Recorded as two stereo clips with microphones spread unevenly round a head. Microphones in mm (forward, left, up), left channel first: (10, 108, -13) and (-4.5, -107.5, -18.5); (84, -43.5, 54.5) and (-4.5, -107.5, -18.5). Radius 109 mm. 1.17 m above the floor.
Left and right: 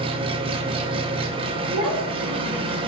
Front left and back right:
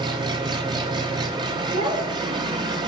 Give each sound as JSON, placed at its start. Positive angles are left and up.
{"t": 0.0, "sound": "an engine running", "azimuth_deg": -160, "distance_m": 0.7}
{"t": 1.7, "sound": "a child speaking", "azimuth_deg": -145, "distance_m": 3.0}